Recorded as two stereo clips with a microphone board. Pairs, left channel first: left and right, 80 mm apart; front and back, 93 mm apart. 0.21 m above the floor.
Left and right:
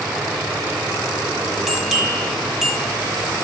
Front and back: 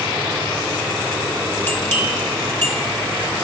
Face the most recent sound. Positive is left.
turn(degrees=-10)